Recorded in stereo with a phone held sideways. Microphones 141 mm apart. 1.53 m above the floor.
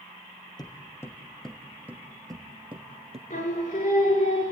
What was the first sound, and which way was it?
Footsteps, 30° left (ahead or behind).